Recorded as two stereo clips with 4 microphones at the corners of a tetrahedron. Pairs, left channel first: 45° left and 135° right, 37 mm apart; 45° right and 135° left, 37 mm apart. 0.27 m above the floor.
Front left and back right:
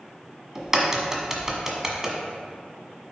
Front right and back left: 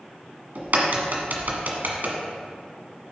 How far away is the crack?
About 1.4 m.